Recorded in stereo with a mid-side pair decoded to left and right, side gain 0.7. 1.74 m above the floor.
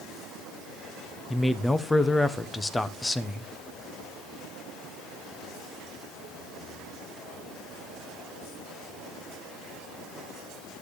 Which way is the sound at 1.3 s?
10° left.